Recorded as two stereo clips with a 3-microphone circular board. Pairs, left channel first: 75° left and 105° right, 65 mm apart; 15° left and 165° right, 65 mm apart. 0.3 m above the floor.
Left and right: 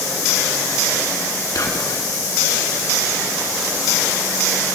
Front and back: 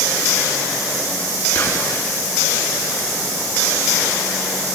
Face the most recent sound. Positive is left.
turn(degrees=65)